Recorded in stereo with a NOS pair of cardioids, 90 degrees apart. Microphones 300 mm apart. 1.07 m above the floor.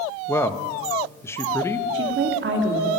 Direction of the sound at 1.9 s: 40° right.